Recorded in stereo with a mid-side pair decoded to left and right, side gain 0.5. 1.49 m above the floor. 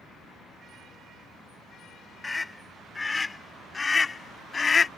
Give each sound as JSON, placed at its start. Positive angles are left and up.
{"t": 2.2, "sound": "a scream", "azimuth_deg": 20}